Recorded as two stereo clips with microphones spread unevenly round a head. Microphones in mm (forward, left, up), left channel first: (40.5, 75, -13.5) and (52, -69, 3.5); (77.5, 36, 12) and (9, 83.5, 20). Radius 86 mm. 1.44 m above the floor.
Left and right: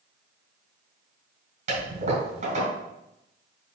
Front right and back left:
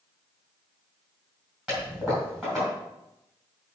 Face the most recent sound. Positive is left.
turn(degrees=-125)